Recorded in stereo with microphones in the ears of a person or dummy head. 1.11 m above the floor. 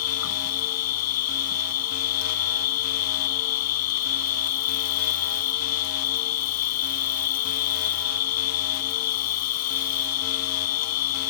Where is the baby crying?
No baby crying in this recording.